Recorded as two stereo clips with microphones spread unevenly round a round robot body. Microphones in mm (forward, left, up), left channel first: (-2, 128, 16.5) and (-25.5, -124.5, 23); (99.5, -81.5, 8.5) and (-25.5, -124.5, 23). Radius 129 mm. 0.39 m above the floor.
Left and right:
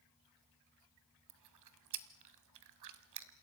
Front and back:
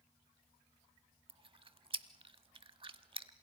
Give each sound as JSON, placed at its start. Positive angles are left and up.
{"t": 1.3, "sound": "chewing", "azimuth_deg": -110, "distance_m": 1.3}